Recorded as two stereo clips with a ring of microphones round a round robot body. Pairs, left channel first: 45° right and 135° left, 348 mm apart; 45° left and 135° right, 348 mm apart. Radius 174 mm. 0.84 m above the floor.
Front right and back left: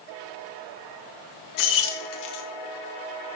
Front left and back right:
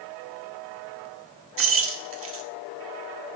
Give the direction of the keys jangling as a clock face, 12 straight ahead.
3 o'clock.